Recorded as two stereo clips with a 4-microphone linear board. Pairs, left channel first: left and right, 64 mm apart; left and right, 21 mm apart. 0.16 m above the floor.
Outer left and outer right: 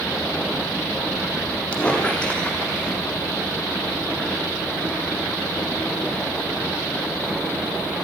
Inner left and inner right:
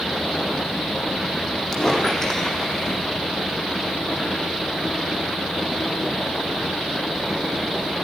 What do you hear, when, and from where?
1.7 s a squeak: 20° left (ahead or behind), 5 m